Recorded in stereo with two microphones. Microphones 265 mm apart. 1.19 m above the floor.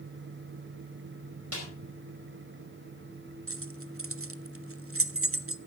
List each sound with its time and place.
1.5 s a snare drum: 65° right (ahead or behind), 4.5 m
3.5 s keys jangling: 55° right (ahead or behind), 0.5 m